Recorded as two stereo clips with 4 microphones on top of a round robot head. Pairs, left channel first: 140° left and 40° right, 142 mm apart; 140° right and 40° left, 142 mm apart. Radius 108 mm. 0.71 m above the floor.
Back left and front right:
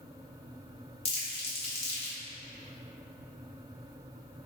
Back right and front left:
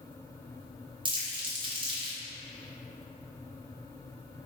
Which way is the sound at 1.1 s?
95° left.